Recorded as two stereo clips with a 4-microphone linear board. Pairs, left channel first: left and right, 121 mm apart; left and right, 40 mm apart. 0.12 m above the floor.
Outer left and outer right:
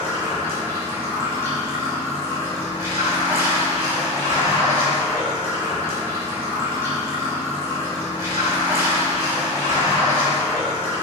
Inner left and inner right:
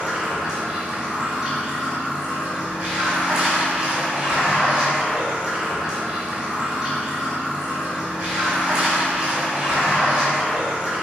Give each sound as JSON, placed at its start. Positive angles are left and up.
{"t": 0.0, "sound": "running water", "side_deg": -25, "distance_m": 0.8}